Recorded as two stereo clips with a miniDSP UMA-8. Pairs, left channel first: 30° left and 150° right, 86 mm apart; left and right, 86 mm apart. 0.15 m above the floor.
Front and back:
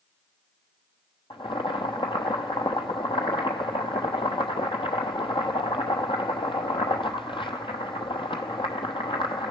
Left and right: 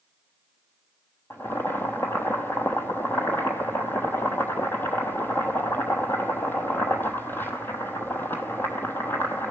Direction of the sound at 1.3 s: 25° left.